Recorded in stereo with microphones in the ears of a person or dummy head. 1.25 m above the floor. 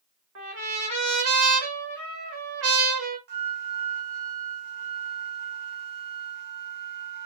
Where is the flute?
50° right (ahead or behind), 0.6 m.